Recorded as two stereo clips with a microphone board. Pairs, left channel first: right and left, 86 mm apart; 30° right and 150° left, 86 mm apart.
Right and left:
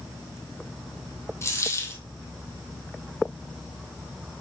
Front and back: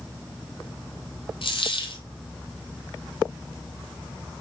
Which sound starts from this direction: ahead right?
A dropped coin, at 1.4 s.